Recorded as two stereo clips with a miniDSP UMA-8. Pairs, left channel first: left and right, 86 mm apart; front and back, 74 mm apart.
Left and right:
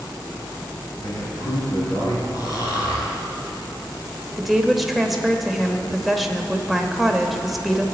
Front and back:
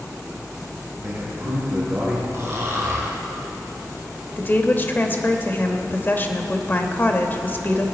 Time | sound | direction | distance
1.0 | a man speaking | 125° left | 4 m
2.3 | snoring | 130° left | 2.5 m
4.4 | a woman speaking | 5° right | 0.9 m